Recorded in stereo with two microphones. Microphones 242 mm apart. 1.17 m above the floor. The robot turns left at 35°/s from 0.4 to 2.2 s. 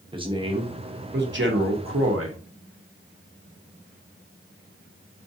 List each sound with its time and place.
0.1 s a man speaking: 25° right, 1.0 m; by 2.4 s 85° right, 1.0 m